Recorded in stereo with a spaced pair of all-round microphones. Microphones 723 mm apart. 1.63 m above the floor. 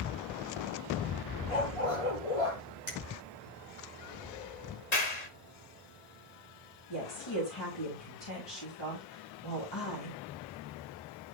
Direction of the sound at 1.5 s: 50° left (ahead or behind).